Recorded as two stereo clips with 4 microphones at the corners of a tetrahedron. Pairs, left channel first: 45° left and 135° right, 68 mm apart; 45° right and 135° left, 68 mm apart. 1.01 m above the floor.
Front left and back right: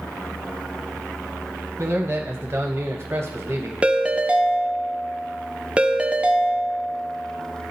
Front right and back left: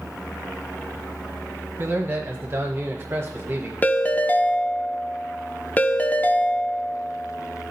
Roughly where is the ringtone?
Right.